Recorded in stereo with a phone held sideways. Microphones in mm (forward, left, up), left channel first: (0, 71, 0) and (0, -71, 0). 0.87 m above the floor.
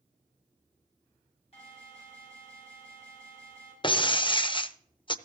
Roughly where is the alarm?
Left.